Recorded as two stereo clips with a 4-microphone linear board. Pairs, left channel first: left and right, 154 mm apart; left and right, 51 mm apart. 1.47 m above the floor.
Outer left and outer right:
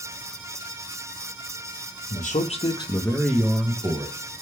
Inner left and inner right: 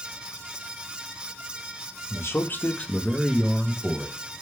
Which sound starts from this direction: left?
A man speaking, at 2.1 s.